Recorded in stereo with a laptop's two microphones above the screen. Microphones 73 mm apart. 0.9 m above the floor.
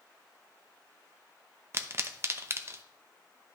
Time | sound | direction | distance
1.7 | a pop | 35° right (ahead or behind) | 0.6 m